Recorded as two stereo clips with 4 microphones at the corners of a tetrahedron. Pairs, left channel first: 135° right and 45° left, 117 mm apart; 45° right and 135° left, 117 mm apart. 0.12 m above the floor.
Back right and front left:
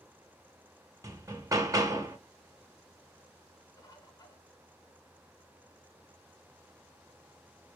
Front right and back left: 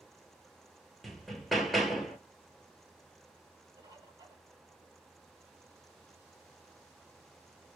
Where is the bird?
175° right, 0.8 m.